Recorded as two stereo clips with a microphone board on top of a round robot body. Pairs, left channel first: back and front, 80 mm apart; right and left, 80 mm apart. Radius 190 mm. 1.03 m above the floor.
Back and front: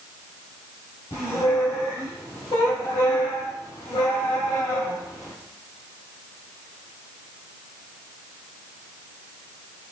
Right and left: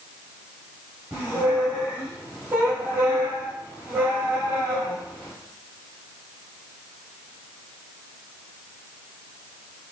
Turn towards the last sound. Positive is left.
turn(degrees=145)